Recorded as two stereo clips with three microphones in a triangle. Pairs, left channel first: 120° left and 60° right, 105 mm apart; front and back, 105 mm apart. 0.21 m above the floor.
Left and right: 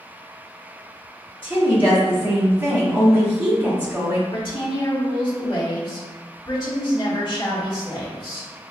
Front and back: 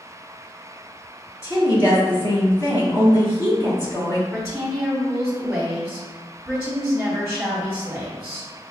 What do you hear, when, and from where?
1.4 s a woman speaking: 5° right, 1.7 m
4.3 s a woman speaking: 105° left, 1.5 m